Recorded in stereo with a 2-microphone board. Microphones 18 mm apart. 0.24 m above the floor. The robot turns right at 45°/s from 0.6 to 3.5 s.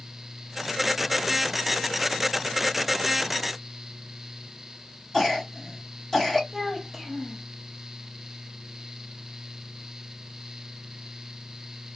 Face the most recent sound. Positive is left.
turn(degrees=-5)  # may be behind; listen again after turning